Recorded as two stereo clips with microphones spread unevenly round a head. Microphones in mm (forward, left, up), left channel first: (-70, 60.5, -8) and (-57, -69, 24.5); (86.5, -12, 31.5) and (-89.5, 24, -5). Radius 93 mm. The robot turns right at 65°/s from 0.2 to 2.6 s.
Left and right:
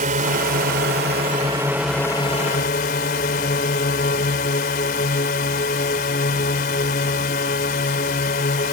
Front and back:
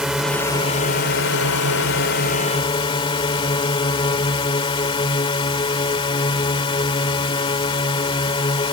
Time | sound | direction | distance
0.0 | a drone | 105° right | ?